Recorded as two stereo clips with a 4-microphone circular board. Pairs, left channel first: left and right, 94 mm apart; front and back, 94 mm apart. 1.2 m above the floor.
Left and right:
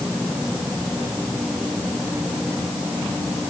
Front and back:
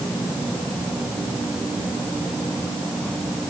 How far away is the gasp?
No gasp in this recording.